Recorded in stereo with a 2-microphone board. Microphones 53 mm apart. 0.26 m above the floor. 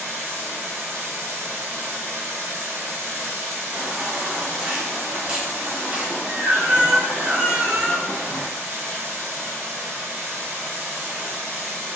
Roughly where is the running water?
Right.